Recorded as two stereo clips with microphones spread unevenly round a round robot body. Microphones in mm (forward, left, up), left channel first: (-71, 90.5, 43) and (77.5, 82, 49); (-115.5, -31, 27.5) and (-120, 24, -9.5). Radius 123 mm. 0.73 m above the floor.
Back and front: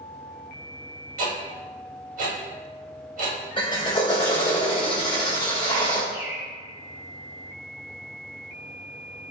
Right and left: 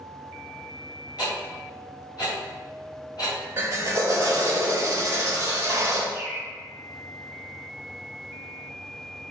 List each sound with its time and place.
1.2 s ticking: 25° right, 1.9 m
3.6 s a drill: 120° left, 2 m
6.1 s a bird: 70° left, 1.8 m